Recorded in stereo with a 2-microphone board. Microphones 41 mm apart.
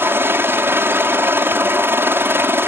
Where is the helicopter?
70° right (ahead or behind).